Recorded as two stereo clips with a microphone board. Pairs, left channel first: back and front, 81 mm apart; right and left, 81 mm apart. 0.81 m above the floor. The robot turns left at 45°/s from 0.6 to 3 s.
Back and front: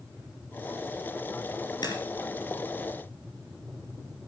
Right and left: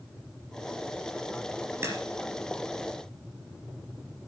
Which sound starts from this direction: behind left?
A crack, at 1.8 s.